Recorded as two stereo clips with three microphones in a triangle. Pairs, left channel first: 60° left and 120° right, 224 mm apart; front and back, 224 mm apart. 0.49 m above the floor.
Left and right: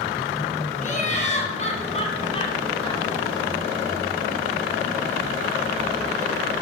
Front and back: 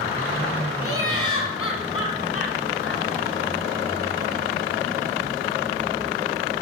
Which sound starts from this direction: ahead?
Laughter, at 0.8 s.